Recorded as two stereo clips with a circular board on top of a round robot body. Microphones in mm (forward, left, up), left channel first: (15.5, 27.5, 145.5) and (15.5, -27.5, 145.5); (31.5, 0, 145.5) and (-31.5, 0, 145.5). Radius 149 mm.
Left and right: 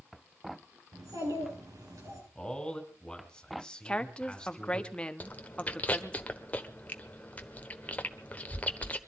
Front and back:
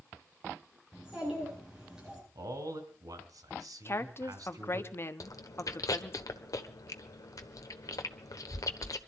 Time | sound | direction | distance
0.9 | a child speaking | 100° right | 9 m
2.4 | a man speaking | 165° left | 3.5 m
3.9 | a woman speaking | 25° left | 1.5 m
5.2 | chewing | 25° left | 1.3 m